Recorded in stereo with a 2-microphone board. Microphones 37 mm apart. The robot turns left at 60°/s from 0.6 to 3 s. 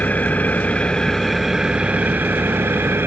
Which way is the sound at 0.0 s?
45° left.